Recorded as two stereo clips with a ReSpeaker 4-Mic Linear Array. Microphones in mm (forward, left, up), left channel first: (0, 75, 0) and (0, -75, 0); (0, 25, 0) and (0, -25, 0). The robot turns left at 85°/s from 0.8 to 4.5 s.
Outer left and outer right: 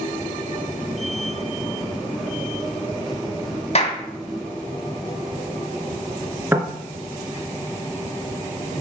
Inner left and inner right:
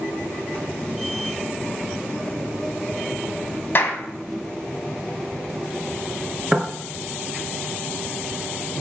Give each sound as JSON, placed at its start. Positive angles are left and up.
{"t": 3.8, "sound": "a clap", "side_deg": 45, "distance_m": 1.8}
{"t": 6.5, "sound": "knocking", "side_deg": -15, "distance_m": 2.0}